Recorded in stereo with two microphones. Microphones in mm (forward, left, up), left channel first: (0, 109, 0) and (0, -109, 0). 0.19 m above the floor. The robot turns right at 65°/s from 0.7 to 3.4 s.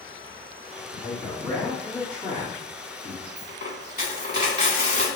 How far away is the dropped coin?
About 1.8 m.